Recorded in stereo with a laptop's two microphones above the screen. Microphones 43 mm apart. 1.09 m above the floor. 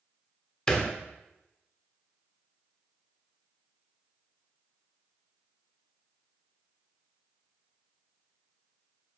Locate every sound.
0.7 s a thud: 15° left (ahead or behind), 1.2 m